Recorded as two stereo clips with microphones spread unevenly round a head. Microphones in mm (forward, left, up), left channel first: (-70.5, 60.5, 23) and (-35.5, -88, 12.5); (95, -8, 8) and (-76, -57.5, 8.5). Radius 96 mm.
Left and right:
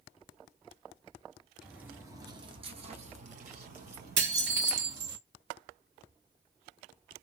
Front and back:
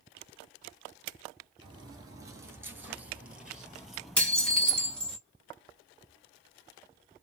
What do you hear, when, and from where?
1.6 s footsteps: 165° right, 1.0 m; by 5.2 s 70° right, 2 m
4.2 s dishes clattering: 70° right, 1.5 m